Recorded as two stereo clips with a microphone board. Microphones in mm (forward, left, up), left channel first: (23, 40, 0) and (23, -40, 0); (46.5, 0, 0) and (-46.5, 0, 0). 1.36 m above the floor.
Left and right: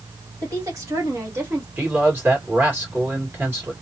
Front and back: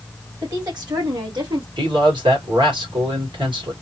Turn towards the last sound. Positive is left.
turn(degrees=-150)